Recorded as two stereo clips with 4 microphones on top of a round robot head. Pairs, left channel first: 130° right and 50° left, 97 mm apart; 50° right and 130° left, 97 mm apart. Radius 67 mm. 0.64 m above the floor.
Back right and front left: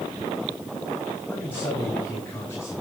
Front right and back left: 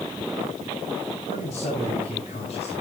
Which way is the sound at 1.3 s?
55° right.